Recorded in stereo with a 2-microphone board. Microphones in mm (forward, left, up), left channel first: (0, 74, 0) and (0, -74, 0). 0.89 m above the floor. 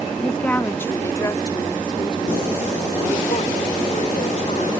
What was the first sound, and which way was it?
A woman speaking, 5° left (ahead or behind).